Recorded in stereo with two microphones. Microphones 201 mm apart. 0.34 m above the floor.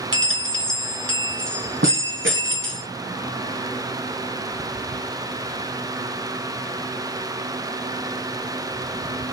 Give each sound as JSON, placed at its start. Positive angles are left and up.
{"t": 0.1, "sound": "a bell", "side_deg": -70, "distance_m": 1.2}